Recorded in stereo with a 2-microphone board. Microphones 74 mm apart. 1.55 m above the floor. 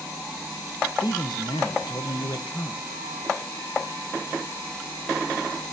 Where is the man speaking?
85° left, 1.3 m.